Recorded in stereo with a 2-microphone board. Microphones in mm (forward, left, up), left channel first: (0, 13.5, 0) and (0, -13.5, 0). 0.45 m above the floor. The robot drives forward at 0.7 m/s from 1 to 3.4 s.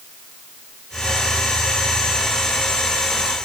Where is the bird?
I don't hear a bird.